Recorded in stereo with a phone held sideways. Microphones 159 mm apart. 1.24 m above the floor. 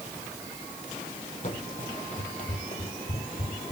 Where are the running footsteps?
55° left (ahead or behind), 2.5 m; by 3.7 s 50° left (ahead or behind), 2 m.